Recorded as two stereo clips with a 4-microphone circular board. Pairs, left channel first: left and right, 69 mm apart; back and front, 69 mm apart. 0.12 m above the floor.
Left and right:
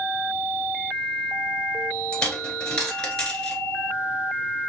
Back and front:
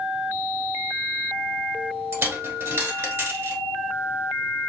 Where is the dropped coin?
20° left, 1.0 m.